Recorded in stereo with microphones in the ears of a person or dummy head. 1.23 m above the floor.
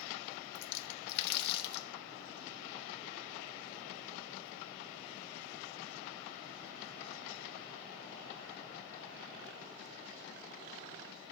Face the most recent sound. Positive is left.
turn(degrees=65)  # may be behind; listen again after turning